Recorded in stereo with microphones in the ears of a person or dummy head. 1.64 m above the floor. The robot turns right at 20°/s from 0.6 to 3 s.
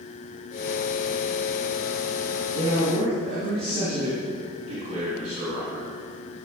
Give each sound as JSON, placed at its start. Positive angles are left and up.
{"t": 2.5, "sound": "a man speaking", "side_deg": -25, "distance_m": 3.5}